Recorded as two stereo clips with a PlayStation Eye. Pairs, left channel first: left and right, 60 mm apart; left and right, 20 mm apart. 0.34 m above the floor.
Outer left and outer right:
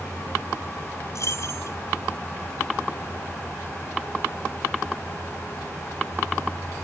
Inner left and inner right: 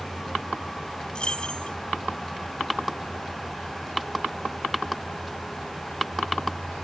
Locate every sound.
1.1 s keys jangling: 60° left (ahead or behind)